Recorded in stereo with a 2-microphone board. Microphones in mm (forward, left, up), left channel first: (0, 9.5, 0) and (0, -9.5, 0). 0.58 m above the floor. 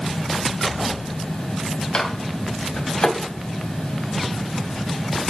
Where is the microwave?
60° left (ahead or behind), 3 m.